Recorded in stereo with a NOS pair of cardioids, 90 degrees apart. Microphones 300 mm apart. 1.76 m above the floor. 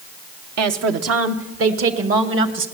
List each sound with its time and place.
0.6 s a woman speaking: 65° right, 1.4 m; by 2.6 s 45° right, 2.5 m